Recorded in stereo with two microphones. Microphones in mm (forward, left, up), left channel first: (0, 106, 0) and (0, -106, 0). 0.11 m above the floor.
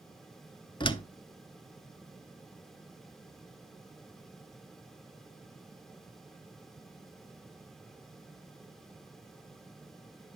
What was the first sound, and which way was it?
A door slam, 25° left (ahead or behind).